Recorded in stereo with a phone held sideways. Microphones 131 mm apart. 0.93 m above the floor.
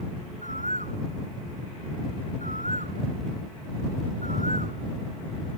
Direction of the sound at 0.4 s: 75° right (ahead or behind).